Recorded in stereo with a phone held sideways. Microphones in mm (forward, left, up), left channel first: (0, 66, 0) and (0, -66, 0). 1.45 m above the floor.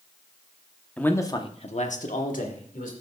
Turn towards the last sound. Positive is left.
turn(degrees=85)